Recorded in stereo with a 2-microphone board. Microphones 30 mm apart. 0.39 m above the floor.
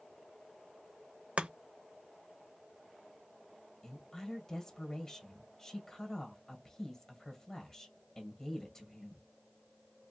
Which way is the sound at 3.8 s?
15° left (ahead or behind).